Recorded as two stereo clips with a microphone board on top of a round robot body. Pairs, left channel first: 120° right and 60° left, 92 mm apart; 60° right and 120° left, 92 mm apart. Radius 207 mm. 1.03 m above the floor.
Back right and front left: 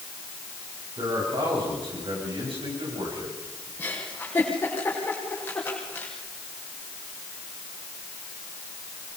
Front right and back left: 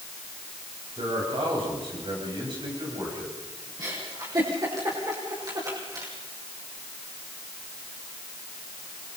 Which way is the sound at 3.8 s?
170° left.